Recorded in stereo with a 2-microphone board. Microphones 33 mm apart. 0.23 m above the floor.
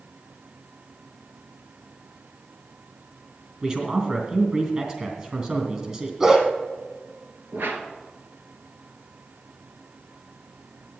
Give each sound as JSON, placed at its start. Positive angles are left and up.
{"t": 3.6, "sound": "a man speaking", "side_deg": -30, "distance_m": 3.5}
{"t": 6.2, "sound": "a dog barking", "side_deg": -20, "distance_m": 2.0}
{"t": 7.5, "sound": "a whoosh", "side_deg": -80, "distance_m": 1.6}